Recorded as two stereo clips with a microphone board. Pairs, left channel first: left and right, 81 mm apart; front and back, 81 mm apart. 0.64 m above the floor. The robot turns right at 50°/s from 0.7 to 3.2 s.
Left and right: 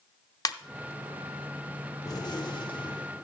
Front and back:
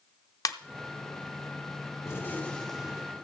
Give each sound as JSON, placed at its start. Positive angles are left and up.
{"t": 0.5, "sound": "a ringtone", "azimuth_deg": 45, "distance_m": 0.5}
{"t": 2.0, "sound": "a gunshot", "azimuth_deg": 50, "distance_m": 1.5}